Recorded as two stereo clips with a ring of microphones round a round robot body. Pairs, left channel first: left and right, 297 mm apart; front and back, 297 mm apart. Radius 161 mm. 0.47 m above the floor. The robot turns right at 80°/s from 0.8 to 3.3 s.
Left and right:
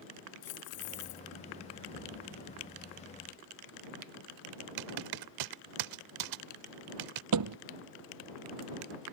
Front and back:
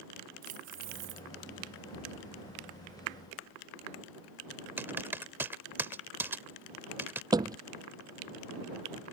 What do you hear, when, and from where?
0.4 s keys jangling: 115° left; by 1.3 s 150° left
1.9 s an explosion: 10° right; by 3.9 s 105° left
4.8 s typing on a keyboard: 95° right
7.3 s a thud: 105° right